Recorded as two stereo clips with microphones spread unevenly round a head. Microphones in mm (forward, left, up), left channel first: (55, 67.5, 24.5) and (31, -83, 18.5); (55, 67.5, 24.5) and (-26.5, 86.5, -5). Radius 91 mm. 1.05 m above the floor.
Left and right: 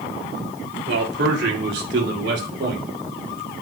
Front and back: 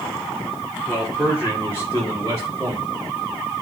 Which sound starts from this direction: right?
A man speaking, at 0.9 s.